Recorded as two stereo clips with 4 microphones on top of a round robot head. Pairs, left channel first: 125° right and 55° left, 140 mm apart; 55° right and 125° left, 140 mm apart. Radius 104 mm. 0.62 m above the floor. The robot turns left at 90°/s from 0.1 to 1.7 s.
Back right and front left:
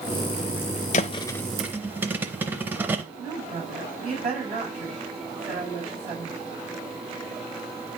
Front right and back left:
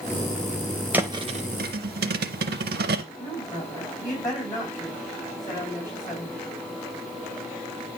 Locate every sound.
0.9 s a thud: 160° right, 0.5 m; by 3.0 s 135° left, 0.5 m
3.2 s a woman speaking: 10° left, 5 m